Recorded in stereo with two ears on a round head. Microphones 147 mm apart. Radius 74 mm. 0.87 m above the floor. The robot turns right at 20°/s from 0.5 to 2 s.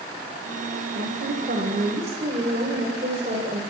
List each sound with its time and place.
0.9 s a woman speaking: 60° right (ahead or behind), 3.5 m; by 3.6 s 40° right (ahead or behind), 3.5 m